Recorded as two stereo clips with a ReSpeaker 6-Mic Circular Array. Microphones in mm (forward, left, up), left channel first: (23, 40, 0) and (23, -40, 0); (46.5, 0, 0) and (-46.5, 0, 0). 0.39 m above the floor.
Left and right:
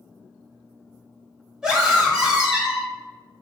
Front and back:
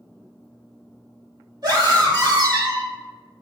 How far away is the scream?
About 1.6 m.